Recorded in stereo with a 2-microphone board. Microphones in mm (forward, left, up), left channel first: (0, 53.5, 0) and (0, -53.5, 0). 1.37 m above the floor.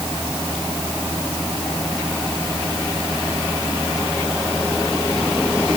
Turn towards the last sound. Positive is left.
No sound to turn to.